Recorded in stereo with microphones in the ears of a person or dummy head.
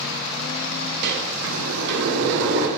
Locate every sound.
1.0 s a sliding door: 65° right (ahead or behind), 0.6 m